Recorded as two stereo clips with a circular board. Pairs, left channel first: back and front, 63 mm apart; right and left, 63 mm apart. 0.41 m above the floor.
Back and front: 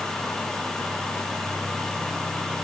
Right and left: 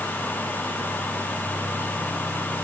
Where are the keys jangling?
I don't hear keys jangling.